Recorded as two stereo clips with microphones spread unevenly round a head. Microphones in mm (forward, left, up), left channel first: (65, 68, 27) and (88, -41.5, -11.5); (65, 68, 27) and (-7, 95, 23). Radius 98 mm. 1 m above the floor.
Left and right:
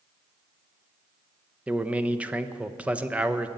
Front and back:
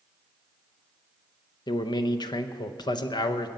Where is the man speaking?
15° right, 0.8 m.